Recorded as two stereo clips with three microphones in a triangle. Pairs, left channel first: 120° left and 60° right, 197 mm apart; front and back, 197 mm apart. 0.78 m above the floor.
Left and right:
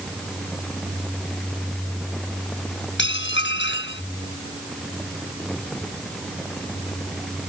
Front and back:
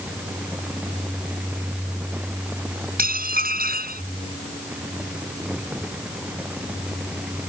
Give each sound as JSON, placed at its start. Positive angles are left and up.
{"t": 3.0, "sound": "dishes clattering", "azimuth_deg": 140}